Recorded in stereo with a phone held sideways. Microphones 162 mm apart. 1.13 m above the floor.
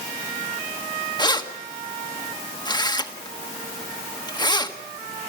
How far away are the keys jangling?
About 1.4 m.